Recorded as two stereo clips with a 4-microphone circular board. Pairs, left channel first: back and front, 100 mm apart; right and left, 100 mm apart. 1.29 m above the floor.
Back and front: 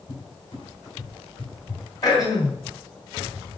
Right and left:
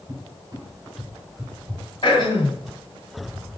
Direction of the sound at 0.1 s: 145° left.